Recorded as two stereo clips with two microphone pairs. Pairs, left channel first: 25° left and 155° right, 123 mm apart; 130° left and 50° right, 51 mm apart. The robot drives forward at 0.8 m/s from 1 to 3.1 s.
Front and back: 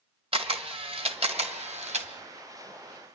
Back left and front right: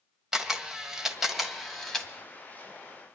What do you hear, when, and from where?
0.3 s a camera shutter: 125° right, 1.5 m; by 2.1 s 145° right, 2 m